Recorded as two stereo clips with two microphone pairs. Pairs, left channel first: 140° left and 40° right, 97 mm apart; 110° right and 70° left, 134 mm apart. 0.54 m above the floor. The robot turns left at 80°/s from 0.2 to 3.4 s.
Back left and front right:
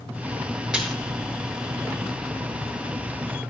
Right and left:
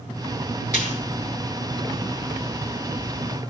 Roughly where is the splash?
Behind right.